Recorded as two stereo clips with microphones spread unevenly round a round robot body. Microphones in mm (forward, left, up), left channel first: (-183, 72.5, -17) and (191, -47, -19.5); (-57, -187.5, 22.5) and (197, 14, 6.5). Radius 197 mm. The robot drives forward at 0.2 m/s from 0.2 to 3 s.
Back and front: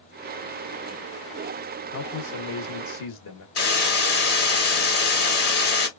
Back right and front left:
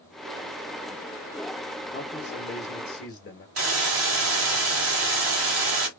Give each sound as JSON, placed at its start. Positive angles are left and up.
{"t": 1.9, "sound": "a man speaking", "azimuth_deg": 155, "distance_m": 0.9}
{"t": 3.6, "sound": "a hiss", "azimuth_deg": 95, "distance_m": 0.9}